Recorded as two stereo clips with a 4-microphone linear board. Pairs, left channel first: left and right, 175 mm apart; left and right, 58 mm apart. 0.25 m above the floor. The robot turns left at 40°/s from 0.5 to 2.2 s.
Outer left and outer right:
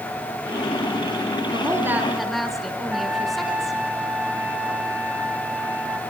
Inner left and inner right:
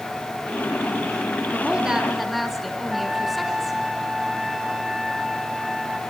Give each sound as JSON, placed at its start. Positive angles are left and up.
{"t": 1.5, "sound": "a woman speaking", "side_deg": -25, "distance_m": 3.0}
{"t": 2.9, "sound": "a trumpet", "side_deg": -10, "distance_m": 2.5}